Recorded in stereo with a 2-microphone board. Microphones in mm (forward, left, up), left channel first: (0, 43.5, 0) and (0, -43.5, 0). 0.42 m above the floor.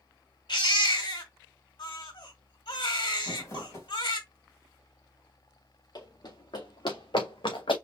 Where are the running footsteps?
55° left (ahead or behind), 3.5 m; by 7.8 s 80° left, 2.5 m.